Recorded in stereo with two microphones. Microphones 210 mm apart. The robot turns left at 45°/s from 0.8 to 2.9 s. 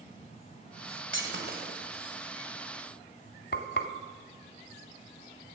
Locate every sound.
1.1 s breaking glass: 65° right (ahead or behind), 1.8 m; by 2.2 s 20° right (ahead or behind), 1.8 m
3.5 s frying: 50° left (ahead or behind), 1.1 m